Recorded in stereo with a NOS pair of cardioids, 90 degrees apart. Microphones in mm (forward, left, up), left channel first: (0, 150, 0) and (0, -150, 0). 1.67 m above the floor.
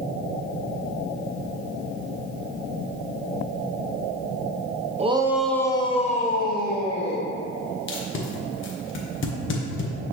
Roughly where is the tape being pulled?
Ahead left.